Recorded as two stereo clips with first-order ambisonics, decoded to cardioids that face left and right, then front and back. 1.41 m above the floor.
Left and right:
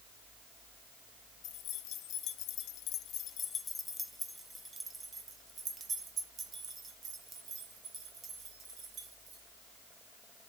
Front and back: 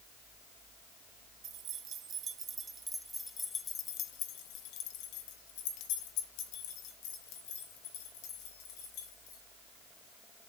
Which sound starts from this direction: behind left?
Keys jangling, at 1.4 s.